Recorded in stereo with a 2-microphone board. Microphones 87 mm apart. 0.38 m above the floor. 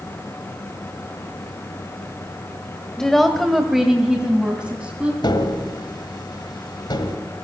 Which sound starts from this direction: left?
Tapping, at 5.2 s.